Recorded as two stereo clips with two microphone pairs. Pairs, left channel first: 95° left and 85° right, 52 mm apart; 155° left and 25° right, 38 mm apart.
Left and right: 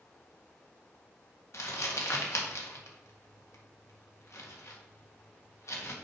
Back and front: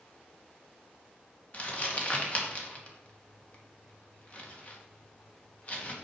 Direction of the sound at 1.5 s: 100° left.